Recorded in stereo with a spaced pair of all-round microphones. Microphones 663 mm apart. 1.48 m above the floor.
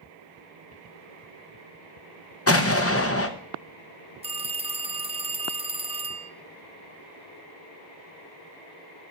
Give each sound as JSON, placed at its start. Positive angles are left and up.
{"t": 2.5, "sound": "an explosion", "side_deg": 25, "distance_m": 0.7}
{"t": 4.2, "sound": "a phone ringing", "side_deg": -10, "distance_m": 0.6}